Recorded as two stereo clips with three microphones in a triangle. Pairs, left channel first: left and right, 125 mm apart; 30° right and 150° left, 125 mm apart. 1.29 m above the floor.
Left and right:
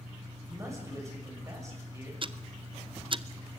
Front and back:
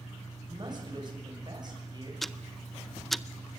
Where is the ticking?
120° right, 0.5 m.